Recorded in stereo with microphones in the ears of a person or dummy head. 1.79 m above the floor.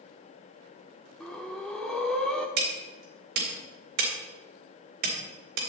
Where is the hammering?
60° right (ahead or behind), 3.5 m.